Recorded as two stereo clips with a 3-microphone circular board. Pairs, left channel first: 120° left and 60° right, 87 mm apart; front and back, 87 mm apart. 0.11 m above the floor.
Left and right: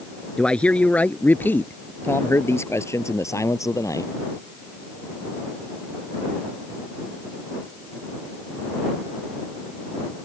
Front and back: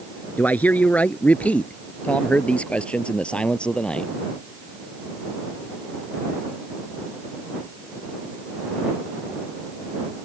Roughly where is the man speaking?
Ahead left.